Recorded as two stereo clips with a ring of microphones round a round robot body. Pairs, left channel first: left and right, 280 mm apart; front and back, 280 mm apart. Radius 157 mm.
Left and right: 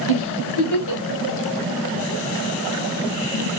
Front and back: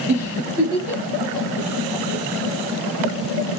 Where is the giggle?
95° left, 1.4 m.